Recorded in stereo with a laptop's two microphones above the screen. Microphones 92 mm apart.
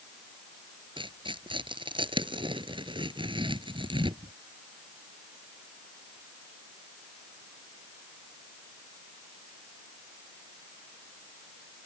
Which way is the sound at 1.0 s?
65° right (ahead or behind).